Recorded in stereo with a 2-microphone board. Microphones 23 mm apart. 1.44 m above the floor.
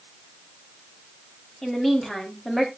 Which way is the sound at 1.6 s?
15° left (ahead or behind).